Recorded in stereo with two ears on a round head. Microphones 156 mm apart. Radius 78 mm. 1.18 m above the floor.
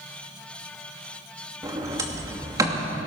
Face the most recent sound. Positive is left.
turn(degrees=-20)  # may be behind; listen again after turning